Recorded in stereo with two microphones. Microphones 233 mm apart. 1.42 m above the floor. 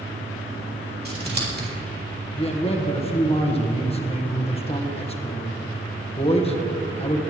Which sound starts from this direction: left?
A man speaking, at 2.4 s.